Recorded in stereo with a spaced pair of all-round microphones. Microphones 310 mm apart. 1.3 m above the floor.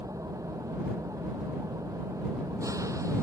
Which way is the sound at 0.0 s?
10° right (ahead or behind).